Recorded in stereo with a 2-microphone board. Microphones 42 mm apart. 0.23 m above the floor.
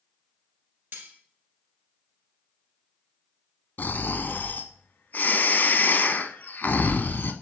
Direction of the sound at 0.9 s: 60° right (ahead or behind).